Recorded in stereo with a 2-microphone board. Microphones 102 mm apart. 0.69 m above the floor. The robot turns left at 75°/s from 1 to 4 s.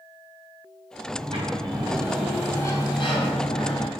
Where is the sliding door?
85° right, 3.5 m; by 3.9 s 65° left, 3.5 m.